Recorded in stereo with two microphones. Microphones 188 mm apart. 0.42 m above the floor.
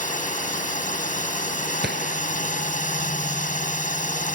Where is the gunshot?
60° right (ahead or behind).